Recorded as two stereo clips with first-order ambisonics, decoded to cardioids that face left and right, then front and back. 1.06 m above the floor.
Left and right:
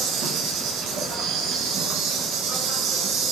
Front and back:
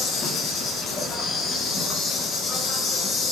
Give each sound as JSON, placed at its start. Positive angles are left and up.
{"t": 0.0, "sound": "an insect", "azimuth_deg": -55, "distance_m": 0.7}